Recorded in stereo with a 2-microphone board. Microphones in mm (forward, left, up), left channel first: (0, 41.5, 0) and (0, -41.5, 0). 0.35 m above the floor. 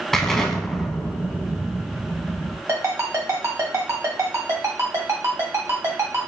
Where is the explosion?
5° left (ahead or behind), 0.6 m.